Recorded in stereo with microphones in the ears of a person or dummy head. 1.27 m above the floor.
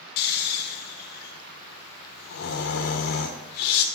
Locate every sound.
0.2 s snoring: 55° left (ahead or behind), 0.9 m